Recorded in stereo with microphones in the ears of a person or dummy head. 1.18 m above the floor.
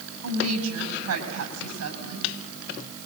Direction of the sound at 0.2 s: 80° right.